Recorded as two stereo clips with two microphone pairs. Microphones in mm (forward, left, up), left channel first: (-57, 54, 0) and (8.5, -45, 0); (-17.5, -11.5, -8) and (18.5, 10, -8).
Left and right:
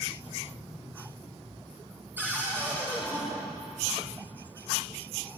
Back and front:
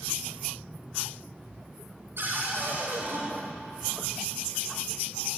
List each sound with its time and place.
2.2 s a cupboard door: 15° left, 7 m